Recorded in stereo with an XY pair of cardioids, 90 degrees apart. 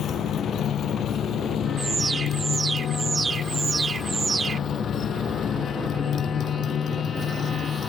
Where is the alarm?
40° right.